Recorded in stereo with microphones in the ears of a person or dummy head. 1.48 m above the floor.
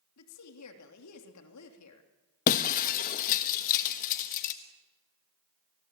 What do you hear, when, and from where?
0.2 s a woman speaking: 80° left, 3 m
2.5 s breaking glass: 45° left (ahead or behind), 1.2 m